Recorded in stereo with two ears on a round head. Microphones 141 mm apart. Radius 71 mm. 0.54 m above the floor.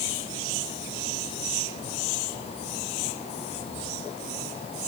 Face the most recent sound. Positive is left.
No sound to turn to.